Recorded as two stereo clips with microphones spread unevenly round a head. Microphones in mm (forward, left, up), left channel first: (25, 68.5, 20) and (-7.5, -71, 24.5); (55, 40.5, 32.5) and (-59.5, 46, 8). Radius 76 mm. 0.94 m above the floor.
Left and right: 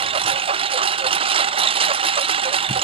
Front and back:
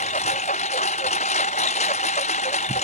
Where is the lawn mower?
50° right.